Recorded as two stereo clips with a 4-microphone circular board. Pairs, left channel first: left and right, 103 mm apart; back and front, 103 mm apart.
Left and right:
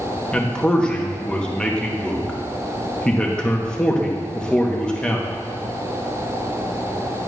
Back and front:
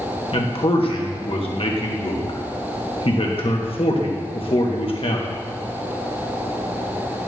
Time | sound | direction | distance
0.3 | a man speaking | 170° left | 1.2 m